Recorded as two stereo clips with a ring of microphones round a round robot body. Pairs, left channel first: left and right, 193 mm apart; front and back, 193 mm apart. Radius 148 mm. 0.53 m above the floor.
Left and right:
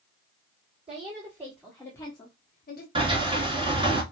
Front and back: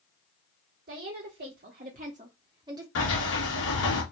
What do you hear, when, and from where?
0.9 s a woman speaking: 150° right, 1.5 m; by 2.9 s 110° left, 1.3 m
3.0 s a sliding door: 25° right, 2.5 m